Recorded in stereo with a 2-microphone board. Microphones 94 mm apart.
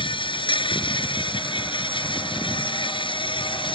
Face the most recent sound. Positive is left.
turn(degrees=75)  # may be behind; listen again after turning